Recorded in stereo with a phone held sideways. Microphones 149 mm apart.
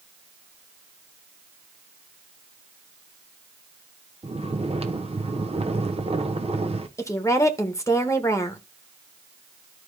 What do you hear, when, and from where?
4.2 s snoring: 40° right (ahead or behind), 0.8 m
7.0 s a woman speaking: 20° left (ahead or behind), 1.4 m